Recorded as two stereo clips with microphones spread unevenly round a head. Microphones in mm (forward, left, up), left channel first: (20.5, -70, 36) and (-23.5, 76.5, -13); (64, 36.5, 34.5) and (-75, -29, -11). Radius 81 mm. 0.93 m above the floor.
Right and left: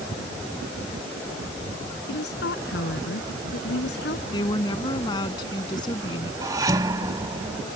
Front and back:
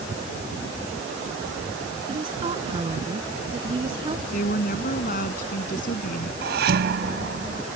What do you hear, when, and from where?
2.1 s a woman speaking: 95° right
4.3 s a woman speaking: 10° right
6.4 s dishes clattering: straight behind